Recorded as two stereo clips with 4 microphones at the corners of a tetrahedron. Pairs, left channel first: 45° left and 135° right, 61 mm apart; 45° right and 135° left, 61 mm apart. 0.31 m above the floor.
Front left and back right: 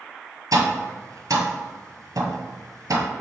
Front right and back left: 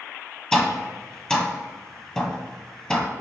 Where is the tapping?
120° right, 1.4 m.